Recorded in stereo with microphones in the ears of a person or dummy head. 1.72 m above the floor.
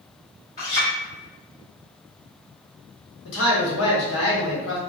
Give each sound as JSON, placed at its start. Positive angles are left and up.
{"t": 0.6, "sound": "a clink", "side_deg": 35, "distance_m": 1.6}
{"t": 3.2, "sound": "a man speaking", "side_deg": 80, "distance_m": 1.2}